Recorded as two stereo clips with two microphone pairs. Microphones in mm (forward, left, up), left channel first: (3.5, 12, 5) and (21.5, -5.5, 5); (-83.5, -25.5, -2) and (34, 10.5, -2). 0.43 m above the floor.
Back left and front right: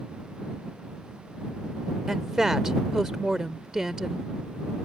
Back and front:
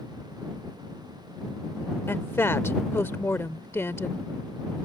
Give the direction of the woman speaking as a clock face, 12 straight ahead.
3 o'clock.